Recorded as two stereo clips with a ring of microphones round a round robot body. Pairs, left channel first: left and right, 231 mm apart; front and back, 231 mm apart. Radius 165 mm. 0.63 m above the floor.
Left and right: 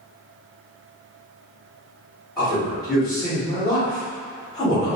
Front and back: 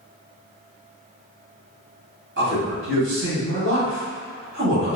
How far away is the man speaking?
About 1.6 m.